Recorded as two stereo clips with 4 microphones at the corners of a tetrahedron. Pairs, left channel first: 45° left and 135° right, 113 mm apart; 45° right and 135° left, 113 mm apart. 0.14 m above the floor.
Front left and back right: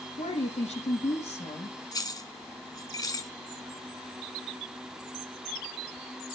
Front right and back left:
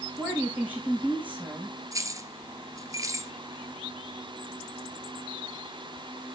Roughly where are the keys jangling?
Left.